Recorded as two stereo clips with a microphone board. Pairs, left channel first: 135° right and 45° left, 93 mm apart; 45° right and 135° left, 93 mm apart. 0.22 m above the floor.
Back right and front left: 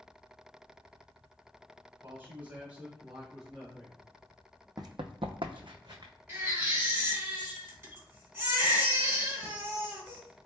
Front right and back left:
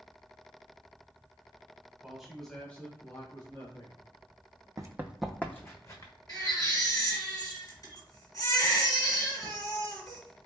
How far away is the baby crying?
About 1.5 m.